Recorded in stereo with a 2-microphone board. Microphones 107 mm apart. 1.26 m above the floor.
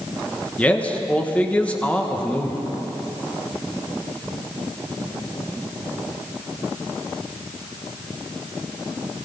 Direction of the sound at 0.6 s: 10° left (ahead or behind).